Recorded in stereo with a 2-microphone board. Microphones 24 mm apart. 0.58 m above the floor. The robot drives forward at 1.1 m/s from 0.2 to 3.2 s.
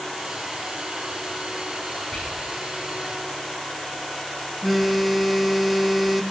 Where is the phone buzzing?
Centre (ahead or behind), 0.5 m.